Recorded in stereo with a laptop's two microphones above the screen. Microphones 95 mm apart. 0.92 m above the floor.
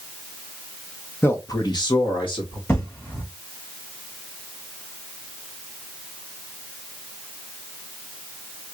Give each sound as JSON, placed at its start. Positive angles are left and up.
{"t": 1.2, "sound": "a man speaking", "side_deg": 25, "distance_m": 0.8}
{"t": 2.7, "sound": "an explosion", "side_deg": 20, "distance_m": 1.5}